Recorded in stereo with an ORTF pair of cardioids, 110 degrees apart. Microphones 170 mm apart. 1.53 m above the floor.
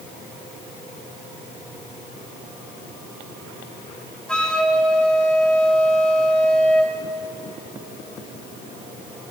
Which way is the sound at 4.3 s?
5° left.